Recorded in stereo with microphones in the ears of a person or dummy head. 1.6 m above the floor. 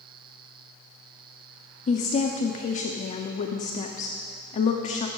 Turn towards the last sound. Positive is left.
turn(degrees=45)  # may be behind; listen again after turning